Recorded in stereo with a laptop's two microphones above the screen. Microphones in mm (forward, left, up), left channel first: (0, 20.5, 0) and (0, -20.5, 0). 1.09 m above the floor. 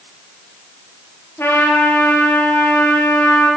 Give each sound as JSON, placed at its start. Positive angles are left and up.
{"t": 1.4, "sound": "a trumpet", "side_deg": 75, "distance_m": 5.5}